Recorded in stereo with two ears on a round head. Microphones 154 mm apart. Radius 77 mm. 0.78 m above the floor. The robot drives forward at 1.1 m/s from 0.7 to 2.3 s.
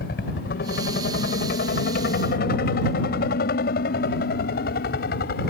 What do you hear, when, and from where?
0.0 s a helicopter: 65° left (ahead or behind)